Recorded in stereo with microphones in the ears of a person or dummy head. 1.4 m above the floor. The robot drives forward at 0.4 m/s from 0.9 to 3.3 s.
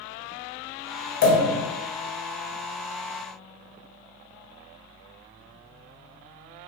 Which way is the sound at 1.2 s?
45° left (ahead or behind).